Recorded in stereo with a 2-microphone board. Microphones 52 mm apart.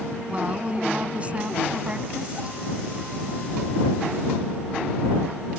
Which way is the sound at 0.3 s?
30° right (ahead or behind).